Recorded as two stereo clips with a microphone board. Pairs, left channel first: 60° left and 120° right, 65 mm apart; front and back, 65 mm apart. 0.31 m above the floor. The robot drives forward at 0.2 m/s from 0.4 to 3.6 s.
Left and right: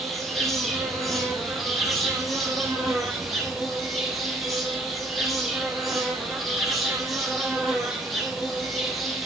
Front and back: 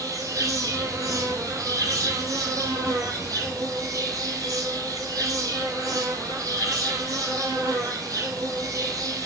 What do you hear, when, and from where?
0.0 s an insect: 150° left, 5 m